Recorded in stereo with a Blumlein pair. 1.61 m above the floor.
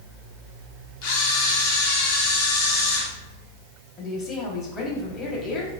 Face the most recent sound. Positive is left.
turn(degrees=30)